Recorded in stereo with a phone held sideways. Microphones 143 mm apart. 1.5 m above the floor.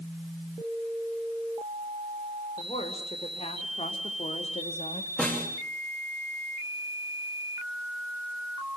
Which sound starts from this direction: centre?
A snare drum, at 5.2 s.